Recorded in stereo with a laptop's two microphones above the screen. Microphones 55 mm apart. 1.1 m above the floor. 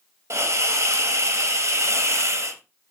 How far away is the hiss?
About 0.6 m.